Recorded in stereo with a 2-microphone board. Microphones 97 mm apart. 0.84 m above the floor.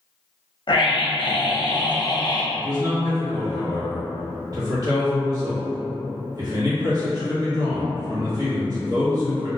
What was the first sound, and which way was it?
A scream, 55° left (ahead or behind).